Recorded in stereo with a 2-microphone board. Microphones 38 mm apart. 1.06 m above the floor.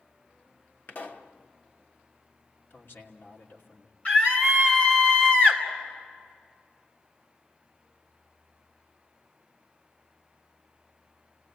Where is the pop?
60° left (ahead or behind), 1.4 m.